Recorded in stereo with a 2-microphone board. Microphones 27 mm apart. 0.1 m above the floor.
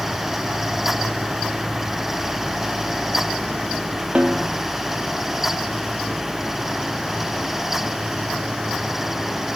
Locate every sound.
4.2 s a snare drum: 35° right (ahead or behind), 2 m